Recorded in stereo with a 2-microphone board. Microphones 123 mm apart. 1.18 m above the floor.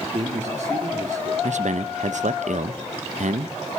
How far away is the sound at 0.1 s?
About 2 m.